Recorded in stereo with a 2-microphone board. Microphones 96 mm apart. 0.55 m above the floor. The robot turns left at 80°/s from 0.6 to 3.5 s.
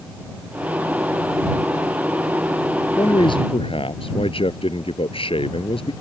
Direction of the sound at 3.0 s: 145° left.